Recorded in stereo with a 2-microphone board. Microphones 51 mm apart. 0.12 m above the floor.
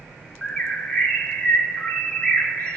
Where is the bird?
20° left (ahead or behind), 1.0 m.